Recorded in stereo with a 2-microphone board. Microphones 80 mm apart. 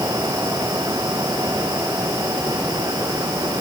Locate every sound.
Only background noise.